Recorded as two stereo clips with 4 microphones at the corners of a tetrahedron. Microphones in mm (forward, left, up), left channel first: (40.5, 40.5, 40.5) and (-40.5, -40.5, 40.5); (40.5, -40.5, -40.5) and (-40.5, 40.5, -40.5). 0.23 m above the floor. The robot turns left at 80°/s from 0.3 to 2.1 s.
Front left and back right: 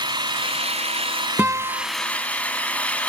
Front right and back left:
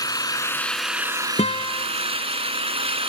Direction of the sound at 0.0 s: 95° right.